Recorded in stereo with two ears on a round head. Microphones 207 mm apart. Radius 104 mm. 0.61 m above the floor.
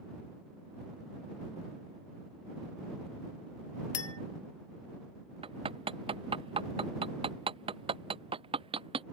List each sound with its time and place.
3.9 s a clink: 75° left (ahead or behind)
5.4 s hammering: 25° right (ahead or behind)